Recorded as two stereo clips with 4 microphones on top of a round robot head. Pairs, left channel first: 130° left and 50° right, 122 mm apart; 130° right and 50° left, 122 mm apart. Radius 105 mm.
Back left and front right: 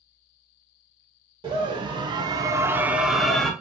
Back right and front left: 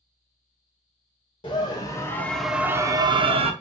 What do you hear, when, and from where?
1.4 s a scream: 90° right, 0.8 m; by 3.5 s 45° left, 0.7 m